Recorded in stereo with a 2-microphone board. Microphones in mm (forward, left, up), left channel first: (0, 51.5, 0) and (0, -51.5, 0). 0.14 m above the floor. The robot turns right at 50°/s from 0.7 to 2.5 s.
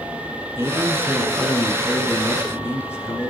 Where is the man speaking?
45° right, 1.3 m; by 3.3 s 45° left, 1.3 m.